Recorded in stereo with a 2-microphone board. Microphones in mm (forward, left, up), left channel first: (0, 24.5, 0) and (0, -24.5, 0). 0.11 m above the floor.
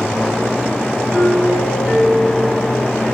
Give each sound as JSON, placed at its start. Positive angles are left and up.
{"t": 1.1, "sound": "a doorbell", "side_deg": -35, "distance_m": 3.5}